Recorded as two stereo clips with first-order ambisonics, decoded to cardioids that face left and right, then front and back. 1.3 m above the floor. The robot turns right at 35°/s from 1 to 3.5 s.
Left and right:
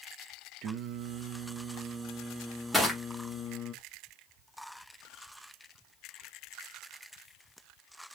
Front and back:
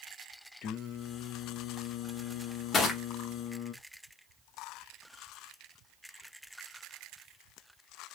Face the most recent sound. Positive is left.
turn(degrees=30)